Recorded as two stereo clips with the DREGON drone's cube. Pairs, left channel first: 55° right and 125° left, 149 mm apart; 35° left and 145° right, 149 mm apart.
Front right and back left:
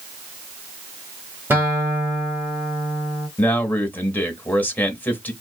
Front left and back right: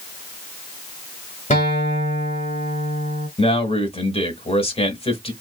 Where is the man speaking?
15° left, 1.1 m.